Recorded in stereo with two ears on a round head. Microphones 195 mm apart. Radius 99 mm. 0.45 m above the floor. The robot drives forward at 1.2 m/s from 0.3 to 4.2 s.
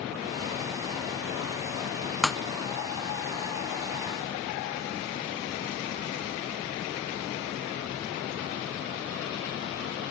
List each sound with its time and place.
2.2 s breaking glass: centre (ahead or behind)